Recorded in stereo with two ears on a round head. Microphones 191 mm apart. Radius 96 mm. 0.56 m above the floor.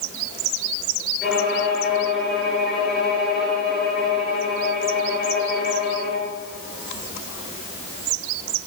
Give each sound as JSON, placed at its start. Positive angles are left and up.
{"t": 1.2, "sound": "a violin", "side_deg": 0, "distance_m": 7.0}